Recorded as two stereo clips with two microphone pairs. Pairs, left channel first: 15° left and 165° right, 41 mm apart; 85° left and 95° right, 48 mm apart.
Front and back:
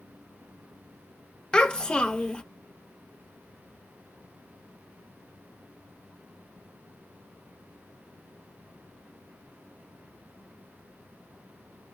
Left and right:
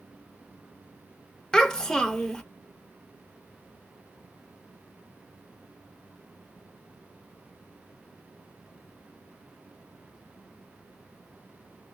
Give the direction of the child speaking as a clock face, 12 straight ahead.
11 o'clock.